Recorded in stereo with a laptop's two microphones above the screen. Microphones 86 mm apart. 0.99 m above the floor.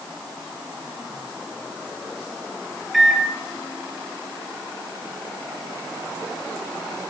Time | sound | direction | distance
2.9 | a microwave | centre (ahead or behind) | 0.6 m